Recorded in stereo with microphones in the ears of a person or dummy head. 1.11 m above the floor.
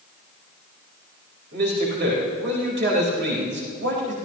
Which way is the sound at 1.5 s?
55° right (ahead or behind).